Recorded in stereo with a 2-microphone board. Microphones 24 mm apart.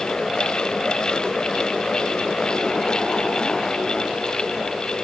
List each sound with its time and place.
Only background noise.